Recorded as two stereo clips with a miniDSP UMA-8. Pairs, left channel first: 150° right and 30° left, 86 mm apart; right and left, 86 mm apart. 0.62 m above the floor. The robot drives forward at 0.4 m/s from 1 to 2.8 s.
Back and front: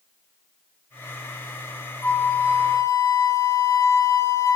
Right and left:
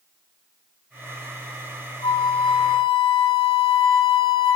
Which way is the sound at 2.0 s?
80° right.